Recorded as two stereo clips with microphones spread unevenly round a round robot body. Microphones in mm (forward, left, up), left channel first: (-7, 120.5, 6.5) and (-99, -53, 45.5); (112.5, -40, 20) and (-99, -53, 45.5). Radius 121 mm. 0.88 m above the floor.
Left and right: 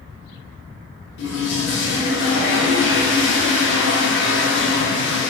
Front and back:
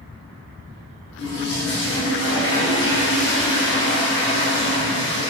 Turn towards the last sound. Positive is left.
turn(degrees=35)